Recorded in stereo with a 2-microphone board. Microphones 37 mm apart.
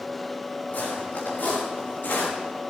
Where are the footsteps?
50° left (ahead or behind), 6.5 m.